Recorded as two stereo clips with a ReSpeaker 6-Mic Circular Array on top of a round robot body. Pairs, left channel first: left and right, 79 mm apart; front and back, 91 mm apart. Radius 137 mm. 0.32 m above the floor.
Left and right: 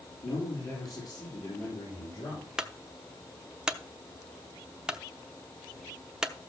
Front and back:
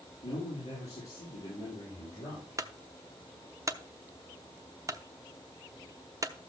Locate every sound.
0.2 s a man speaking: 50° left, 5.5 m; by 2.5 s 55° left, 8 m
2.6 s a clunk: 165° right, 1.1 m